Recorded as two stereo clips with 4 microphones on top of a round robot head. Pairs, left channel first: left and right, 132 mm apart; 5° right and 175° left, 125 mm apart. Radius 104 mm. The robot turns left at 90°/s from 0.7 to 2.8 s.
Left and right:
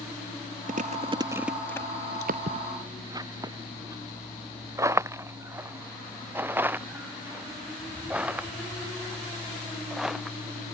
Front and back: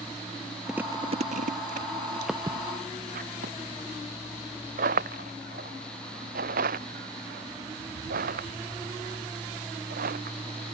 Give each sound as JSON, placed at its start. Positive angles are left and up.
{"t": 0.7, "sound": "chewing", "azimuth_deg": -100}
{"t": 2.3, "sound": "footsteps", "azimuth_deg": -100}